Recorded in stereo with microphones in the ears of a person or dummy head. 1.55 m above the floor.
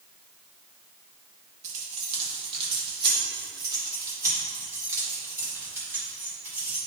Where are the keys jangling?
40° right (ahead or behind), 2 m; by 6.8 s 5° right (ahead or behind), 4.5 m.